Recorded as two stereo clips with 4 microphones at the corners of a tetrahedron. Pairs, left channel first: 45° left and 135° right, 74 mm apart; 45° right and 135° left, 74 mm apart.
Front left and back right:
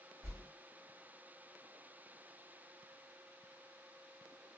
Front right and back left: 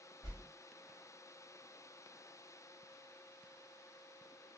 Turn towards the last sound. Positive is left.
turn(degrees=-90)